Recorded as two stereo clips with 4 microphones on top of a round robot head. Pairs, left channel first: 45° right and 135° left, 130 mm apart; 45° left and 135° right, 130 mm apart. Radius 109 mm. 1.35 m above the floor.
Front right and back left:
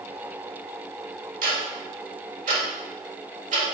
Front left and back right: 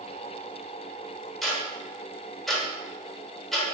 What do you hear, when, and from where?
1.4 s ticking: 135° left, 1.3 m